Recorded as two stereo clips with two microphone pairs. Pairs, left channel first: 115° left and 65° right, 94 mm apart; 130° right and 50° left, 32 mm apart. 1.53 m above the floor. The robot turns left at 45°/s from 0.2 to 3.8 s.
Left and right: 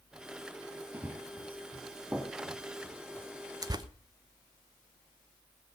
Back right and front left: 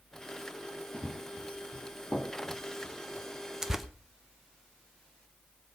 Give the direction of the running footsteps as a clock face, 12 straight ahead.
4 o'clock.